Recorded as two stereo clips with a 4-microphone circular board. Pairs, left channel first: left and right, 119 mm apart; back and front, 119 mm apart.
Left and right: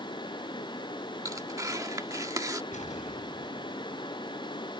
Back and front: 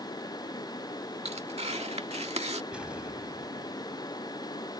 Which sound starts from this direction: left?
An explosion, at 2.7 s.